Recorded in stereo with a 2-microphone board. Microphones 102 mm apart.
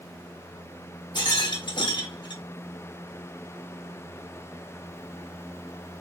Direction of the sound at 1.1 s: 50° left (ahead or behind).